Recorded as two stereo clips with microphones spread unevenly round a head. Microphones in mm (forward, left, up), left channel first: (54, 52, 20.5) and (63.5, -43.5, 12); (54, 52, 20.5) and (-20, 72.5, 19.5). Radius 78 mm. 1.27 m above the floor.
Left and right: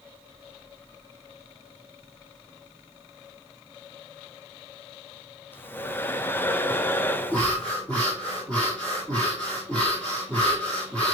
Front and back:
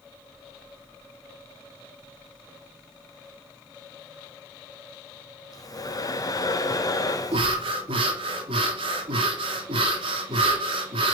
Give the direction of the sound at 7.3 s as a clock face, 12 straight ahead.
6 o'clock.